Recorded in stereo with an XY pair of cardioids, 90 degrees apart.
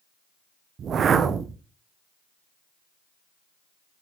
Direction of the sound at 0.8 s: 60° right.